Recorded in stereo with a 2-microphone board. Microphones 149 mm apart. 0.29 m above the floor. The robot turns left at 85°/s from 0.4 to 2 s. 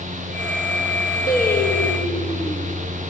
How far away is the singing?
About 3 m.